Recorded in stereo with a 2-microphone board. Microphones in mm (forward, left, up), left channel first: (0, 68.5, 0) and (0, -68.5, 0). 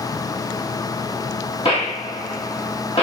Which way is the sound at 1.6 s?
45° left (ahead or behind).